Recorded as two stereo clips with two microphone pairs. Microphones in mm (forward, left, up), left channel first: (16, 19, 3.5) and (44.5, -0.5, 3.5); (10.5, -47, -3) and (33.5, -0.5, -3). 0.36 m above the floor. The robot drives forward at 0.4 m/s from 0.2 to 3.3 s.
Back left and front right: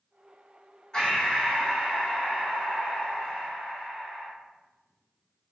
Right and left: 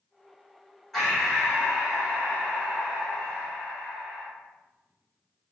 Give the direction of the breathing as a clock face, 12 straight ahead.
7 o'clock.